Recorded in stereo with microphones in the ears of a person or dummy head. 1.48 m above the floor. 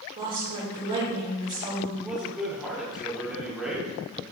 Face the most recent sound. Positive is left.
turn(degrees=-5)  # may be behind; listen again after turning